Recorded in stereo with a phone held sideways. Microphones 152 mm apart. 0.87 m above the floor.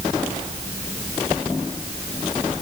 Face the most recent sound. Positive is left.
No sound to turn to.